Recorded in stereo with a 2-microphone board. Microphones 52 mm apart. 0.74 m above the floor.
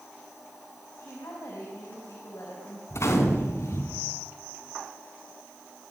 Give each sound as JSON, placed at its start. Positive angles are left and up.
{"t": 1.0, "sound": "a woman speaking", "side_deg": 80, "distance_m": 5.5}
{"t": 2.9, "sound": "a gunshot", "side_deg": 60, "distance_m": 3.0}